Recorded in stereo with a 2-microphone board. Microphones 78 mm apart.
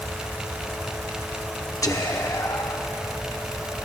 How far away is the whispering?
About 0.9 m.